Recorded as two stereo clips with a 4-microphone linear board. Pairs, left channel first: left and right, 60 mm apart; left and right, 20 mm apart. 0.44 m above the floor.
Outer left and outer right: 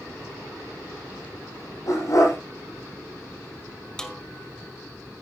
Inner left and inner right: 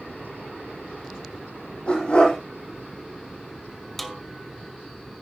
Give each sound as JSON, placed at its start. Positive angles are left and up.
{"t": 1.9, "sound": "a dog barking", "side_deg": 70, "distance_m": 7.0}
{"t": 4.0, "sound": "a snare drum", "side_deg": 10, "distance_m": 1.7}